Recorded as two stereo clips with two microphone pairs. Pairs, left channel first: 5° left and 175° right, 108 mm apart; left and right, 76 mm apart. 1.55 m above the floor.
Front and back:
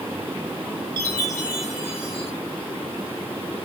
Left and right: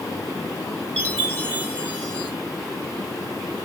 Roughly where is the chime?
Behind left.